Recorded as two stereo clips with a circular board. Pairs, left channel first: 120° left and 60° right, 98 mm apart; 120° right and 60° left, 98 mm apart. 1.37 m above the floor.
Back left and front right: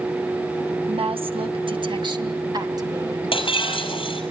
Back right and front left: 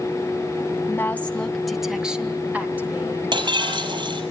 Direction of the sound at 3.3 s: 95° left.